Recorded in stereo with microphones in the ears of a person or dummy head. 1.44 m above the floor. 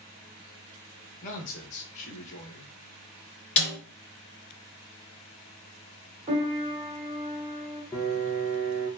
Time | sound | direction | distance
1.2 | a man speaking | 40° left (ahead or behind) | 1.4 m
3.6 | a snare drum | 30° left (ahead or behind) | 2.5 m
6.3 | a piano | 25° right (ahead or behind) | 1.3 m
7.9 | a piano | 10° left (ahead or behind) | 0.7 m